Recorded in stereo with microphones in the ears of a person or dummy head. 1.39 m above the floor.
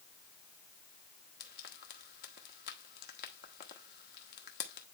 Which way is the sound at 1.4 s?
50° left (ahead or behind).